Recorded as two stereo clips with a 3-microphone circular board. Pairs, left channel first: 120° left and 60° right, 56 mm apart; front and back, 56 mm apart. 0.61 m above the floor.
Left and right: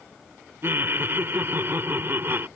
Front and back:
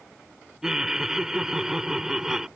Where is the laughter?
100° right.